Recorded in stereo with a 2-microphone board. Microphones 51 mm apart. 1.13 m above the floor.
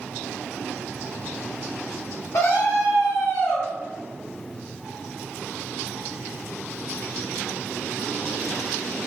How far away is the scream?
About 1.1 m.